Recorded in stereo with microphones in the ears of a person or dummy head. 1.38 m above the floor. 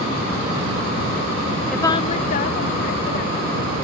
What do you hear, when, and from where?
1.7 s a woman speaking: centre (ahead or behind); by 3.7 s 65° left (ahead or behind)